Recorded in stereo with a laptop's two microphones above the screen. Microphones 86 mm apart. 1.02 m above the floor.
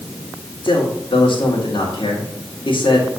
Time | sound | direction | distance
0.6 | a man speaking | 75° left (ahead or behind) | 2 m